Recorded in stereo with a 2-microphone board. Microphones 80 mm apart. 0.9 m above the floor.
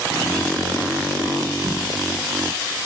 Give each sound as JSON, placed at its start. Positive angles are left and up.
{"t": 1.6, "sound": "a whoosh", "side_deg": -65, "distance_m": 1.6}